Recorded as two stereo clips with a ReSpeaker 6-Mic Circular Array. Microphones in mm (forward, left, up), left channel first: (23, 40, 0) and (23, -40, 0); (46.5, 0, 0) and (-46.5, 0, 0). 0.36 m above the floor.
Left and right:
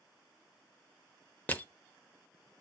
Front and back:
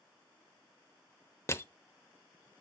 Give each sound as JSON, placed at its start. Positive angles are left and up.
{"t": 1.5, "sound": "crushing", "azimuth_deg": 35, "distance_m": 0.8}